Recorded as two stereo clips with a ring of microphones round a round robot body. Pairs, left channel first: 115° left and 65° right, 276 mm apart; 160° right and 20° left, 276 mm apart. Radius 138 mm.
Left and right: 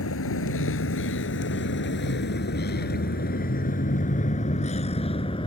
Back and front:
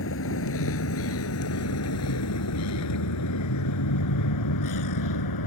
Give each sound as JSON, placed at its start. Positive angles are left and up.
{"t": 0.0, "sound": "a vehicle", "azimuth_deg": 155}